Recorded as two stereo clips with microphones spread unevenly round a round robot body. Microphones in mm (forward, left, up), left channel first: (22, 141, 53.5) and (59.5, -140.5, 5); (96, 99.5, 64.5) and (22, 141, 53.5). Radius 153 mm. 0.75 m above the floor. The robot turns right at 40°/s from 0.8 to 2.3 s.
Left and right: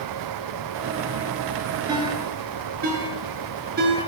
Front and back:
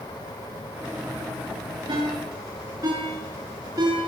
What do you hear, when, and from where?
1.9 s a ringtone: 160° right, 8.5 m; by 4.0 s 145° right, 8.5 m